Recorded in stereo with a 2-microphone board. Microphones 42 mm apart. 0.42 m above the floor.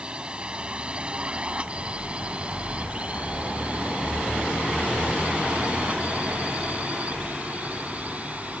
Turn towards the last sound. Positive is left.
turn(degrees=-35)  # may be behind; listen again after turning